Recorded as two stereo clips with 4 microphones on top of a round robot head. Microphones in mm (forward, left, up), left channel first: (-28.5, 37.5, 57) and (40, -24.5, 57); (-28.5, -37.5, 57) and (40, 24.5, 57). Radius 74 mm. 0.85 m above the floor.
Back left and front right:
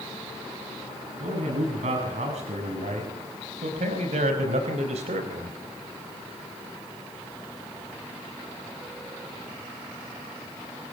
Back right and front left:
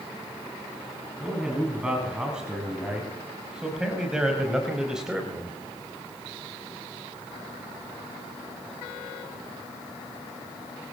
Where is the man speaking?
40° right, 8 m; by 5.6 s 45° right, 4 m.